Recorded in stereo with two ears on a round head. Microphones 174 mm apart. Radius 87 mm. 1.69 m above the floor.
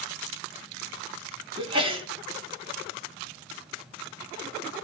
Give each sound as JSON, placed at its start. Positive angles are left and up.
{"t": 1.6, "sound": "a sneeze", "side_deg": -30, "distance_m": 3.5}